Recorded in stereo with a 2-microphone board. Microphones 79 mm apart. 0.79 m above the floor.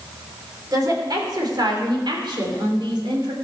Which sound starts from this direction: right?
A woman speaking, at 0.7 s.